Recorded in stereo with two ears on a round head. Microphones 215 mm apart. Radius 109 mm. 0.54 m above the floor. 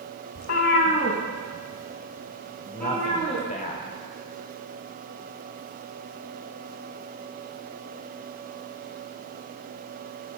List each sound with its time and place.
0.3 s a cat meowing: 70° left (ahead or behind), 1.0 m; by 3.5 s 5° left (ahead or behind), 5 m
2.6 s a man speaking: 35° left (ahead or behind), 2.0 m